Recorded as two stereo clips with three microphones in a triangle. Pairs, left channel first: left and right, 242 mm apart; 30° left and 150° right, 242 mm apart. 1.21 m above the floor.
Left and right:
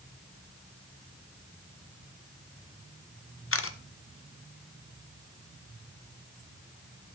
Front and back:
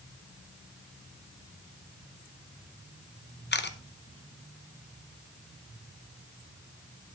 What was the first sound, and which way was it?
A camera shutter, 70° left.